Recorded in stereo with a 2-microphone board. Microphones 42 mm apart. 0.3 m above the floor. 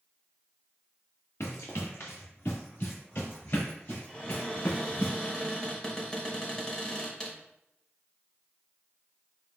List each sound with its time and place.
1.4 s running footsteps: 75° left (ahead or behind), 1.7 m; by 5.1 s 45° left (ahead or behind), 4.5 m
4.1 s a cupboard door: 15° left (ahead or behind), 1.4 m